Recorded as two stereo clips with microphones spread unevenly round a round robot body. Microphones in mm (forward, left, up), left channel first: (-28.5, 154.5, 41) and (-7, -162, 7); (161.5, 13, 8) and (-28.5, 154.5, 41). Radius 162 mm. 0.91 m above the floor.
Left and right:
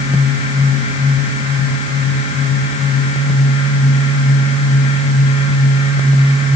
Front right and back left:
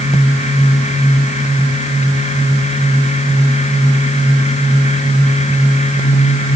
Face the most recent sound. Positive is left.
No sound to turn to.